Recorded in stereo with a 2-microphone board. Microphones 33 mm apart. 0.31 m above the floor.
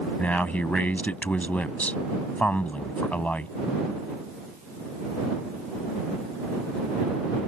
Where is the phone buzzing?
I don't hear a phone buzzing.